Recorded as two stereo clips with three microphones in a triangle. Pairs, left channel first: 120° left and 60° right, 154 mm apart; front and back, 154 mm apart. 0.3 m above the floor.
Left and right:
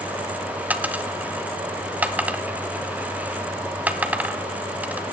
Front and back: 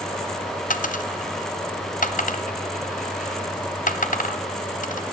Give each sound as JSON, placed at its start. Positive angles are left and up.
{"t": 0.7, "sound": "a dropped coin", "azimuth_deg": 20, "distance_m": 0.9}